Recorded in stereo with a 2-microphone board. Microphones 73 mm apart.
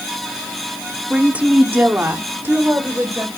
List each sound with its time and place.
1.1 s a woman speaking: 10° right (ahead or behind), 1.2 m; by 3.3 s 30° right (ahead or behind), 2.5 m